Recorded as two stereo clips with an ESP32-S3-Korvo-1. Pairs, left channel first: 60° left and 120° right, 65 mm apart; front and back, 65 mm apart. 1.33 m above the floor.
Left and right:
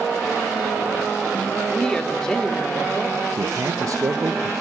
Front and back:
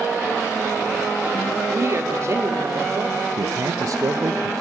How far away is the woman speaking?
About 4 m.